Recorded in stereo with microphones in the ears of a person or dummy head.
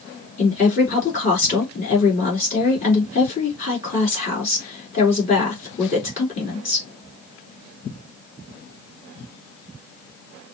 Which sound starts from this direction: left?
A woman speaking, at 0.4 s.